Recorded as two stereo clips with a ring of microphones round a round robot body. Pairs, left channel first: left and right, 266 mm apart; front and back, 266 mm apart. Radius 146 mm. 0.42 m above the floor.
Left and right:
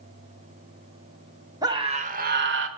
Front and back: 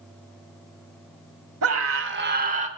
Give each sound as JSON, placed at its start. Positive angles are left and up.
{"t": 1.6, "sound": "a scream", "azimuth_deg": -165, "distance_m": 1.2}